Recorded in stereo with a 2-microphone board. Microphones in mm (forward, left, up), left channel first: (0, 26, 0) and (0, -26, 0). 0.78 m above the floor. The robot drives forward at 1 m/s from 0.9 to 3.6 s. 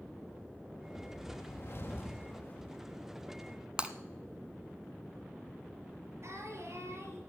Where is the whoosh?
45° left (ahead or behind), 1.3 m; by 2.7 s 35° left (ahead or behind), 1.6 m.